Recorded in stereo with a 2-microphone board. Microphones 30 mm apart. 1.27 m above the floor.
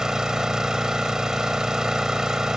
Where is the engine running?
20° right (ahead or behind).